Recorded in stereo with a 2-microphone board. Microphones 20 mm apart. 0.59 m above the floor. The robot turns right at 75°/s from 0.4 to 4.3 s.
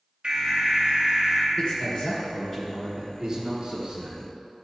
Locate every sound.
0.2 s an alarm: 120° right, 1.9 m; by 1.5 s 40° right, 1.9 m
1.6 s a man speaking: 80° left, 1.6 m; by 4.3 s 75° right, 1.6 m